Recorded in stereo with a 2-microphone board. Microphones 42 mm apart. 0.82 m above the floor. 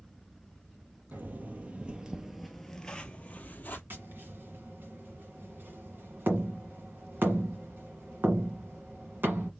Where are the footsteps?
45° right (ahead or behind), 1.1 m; by 3.8 s 40° left (ahead or behind), 1.2 m.